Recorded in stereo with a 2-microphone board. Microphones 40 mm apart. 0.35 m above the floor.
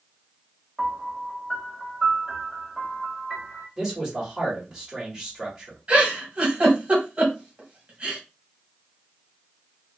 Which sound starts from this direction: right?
A giggle, at 5.9 s.